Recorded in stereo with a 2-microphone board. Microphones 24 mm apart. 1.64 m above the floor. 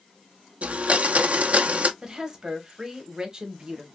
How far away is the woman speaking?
About 1.1 m.